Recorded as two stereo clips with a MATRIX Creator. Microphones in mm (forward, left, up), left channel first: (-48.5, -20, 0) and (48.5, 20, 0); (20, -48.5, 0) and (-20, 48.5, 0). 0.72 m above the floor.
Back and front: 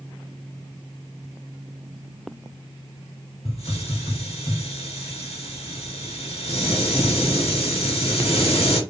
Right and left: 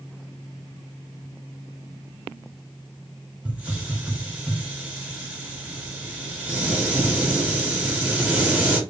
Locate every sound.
3.5 s a hiss: 170° right, 0.8 m